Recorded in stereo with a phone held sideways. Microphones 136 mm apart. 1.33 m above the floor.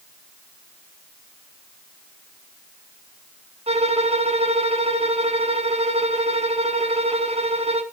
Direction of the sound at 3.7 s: 50° right (ahead or behind).